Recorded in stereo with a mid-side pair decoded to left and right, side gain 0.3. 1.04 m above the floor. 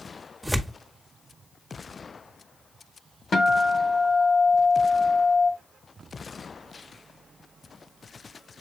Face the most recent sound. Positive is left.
turn(degrees=70)